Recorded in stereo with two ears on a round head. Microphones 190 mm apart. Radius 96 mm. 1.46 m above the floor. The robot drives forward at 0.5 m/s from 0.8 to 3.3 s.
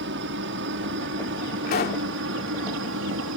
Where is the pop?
40° left (ahead or behind); by 2.1 s 45° left (ahead or behind).